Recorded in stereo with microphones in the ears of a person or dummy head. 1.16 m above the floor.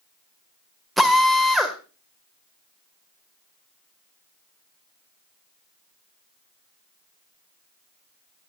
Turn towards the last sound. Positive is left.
turn(degrees=-5)  # may be behind; listen again after turning